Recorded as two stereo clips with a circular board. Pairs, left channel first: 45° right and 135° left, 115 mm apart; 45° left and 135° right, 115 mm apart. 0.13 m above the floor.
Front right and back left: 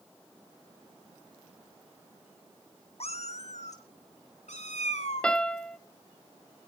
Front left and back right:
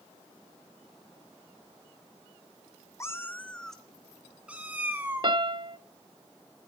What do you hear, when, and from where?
3.0 s a cat meowing: 20° right, 0.9 m; by 5.3 s 65° right, 1.8 m
5.2 s a piano: 120° right, 0.5 m